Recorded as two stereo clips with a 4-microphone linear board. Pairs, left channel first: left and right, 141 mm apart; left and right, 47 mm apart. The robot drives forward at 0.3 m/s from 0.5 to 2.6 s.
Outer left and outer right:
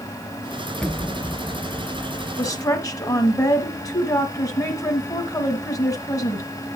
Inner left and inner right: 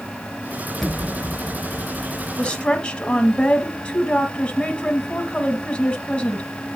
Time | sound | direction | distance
0.8 | an explosion | 5° left (ahead or behind) | 1.4 m
2.4 | a woman speaking | 25° left (ahead or behind) | 1.1 m